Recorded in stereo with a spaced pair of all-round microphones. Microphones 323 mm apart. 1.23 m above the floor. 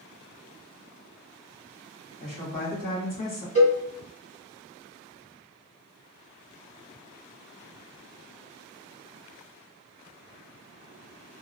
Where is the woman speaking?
80° left, 1.2 m.